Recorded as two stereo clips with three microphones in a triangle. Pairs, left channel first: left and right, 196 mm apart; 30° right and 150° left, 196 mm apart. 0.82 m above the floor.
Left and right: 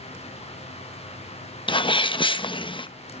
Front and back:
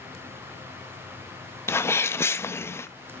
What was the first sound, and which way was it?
A sneeze, 40° left.